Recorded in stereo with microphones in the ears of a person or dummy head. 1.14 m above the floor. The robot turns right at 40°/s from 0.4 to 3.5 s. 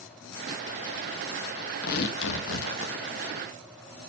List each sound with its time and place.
1.8 s tearing paper: 60° left, 0.9 m; by 2.9 s 100° left, 0.9 m